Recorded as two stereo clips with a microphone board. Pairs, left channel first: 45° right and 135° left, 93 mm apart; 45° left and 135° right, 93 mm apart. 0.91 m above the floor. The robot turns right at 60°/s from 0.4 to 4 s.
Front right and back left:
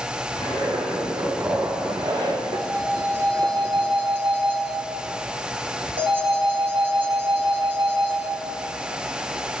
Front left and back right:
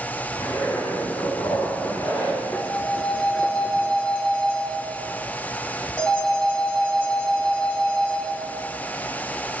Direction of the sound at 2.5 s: 35° left.